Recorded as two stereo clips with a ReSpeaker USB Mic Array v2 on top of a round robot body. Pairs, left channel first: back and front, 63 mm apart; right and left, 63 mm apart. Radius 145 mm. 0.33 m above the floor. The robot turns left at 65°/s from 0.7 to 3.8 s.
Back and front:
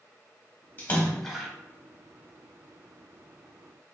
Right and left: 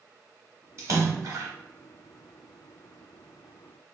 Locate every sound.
0.8 s a splash: 125° left, 1.1 m; by 1.5 s 80° left, 1.1 m